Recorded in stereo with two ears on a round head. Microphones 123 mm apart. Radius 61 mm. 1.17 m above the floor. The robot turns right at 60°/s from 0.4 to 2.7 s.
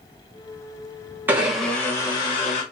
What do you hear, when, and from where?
1.3 s a blender: 15° right, 1.3 m; by 2.6 s 65° left, 1.3 m